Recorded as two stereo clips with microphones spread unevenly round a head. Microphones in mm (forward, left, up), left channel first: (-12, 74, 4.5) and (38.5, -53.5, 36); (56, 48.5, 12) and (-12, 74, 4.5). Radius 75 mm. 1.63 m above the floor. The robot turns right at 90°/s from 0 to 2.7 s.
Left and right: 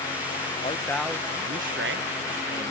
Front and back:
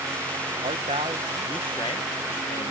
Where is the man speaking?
170° left; by 2.7 s 5° right.